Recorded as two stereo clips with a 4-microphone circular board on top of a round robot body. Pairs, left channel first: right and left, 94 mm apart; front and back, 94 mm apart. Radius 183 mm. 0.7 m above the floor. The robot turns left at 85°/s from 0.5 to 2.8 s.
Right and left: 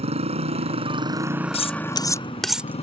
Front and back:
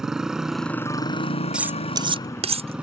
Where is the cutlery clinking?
100° right; by 2.8 s 155° left.